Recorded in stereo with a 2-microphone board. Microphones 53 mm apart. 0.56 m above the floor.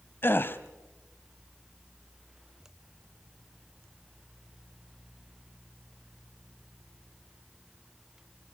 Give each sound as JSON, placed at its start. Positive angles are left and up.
{"t": 0.2, "sound": "a gasp", "side_deg": 45, "distance_m": 1.1}